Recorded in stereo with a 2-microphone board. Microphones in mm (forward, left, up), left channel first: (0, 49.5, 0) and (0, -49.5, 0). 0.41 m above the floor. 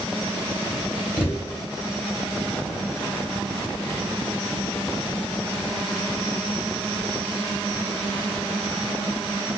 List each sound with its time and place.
1.2 s a thud: 10° right (ahead or behind), 0.8 m